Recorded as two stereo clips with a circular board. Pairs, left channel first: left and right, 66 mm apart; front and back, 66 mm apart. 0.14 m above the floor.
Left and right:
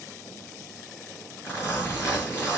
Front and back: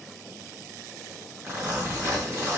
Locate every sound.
1.4 s a zipper: 145° left, 3.5 m